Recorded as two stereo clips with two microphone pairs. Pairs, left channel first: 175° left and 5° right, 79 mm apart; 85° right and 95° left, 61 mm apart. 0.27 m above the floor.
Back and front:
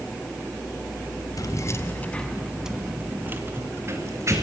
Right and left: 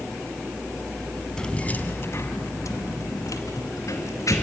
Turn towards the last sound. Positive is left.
turn(degrees=-55)